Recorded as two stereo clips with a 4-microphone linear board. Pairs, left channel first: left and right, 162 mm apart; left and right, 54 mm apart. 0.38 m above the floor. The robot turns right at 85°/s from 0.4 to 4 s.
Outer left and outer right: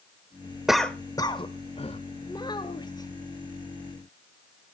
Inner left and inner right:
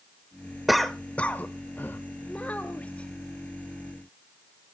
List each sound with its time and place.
0.7 s a cough: 5° right (ahead or behind), 1.0 m; by 2.0 s 35° left (ahead or behind), 1.0 m
2.3 s a child speaking: 25° left (ahead or behind), 0.8 m; by 3.1 s 20° left (ahead or behind), 0.8 m